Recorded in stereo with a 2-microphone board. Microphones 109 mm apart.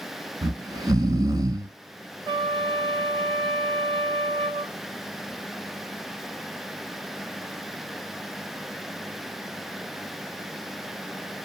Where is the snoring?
40° right (ahead or behind), 0.6 m.